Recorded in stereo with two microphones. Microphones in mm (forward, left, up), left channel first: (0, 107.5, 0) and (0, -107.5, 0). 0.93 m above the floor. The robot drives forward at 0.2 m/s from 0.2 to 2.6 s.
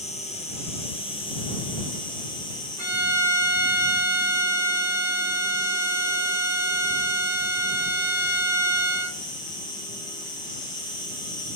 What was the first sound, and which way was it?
An insect, 30° left (ahead or behind).